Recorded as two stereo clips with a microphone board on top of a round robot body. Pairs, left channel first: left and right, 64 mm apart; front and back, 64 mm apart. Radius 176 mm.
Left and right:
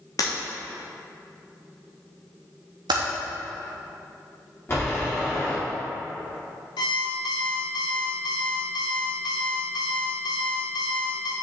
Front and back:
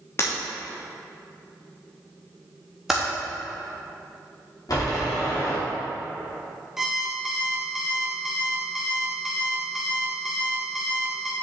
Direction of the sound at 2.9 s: 95° right.